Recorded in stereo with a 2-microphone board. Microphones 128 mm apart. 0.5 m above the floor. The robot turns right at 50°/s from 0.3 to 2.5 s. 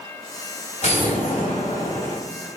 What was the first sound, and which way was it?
An explosion, 65° left.